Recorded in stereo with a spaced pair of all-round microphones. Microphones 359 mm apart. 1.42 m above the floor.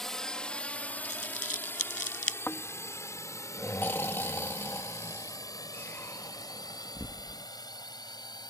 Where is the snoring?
5° left (ahead or behind).